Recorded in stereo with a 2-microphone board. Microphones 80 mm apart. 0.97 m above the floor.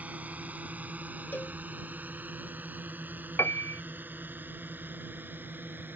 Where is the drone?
15° right (ahead or behind); by 6.0 s 25° right (ahead or behind).